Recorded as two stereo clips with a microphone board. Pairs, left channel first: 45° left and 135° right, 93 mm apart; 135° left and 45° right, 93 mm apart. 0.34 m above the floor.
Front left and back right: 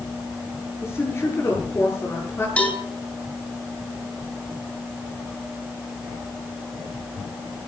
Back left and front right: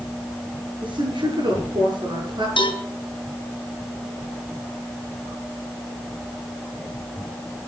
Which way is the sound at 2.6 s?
120° left.